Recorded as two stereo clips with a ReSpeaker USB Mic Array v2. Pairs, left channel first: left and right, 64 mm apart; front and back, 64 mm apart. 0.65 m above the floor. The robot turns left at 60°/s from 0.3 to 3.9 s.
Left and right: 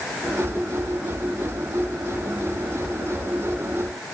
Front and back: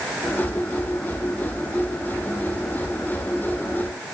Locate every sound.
Only background noise.